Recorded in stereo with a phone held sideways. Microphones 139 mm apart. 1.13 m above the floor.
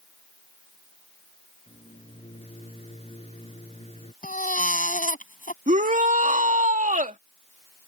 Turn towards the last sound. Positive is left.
turn(degrees=-70)  # may be behind; listen again after turning